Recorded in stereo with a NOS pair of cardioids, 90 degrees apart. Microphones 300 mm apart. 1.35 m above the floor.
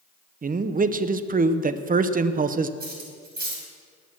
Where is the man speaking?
30° right, 0.8 m.